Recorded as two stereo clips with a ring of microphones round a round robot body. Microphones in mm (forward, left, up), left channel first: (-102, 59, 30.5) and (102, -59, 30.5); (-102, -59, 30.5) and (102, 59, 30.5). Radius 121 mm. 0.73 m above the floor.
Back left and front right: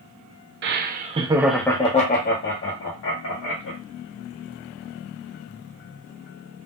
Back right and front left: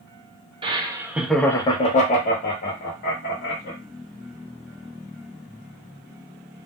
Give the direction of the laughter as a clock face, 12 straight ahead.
1 o'clock.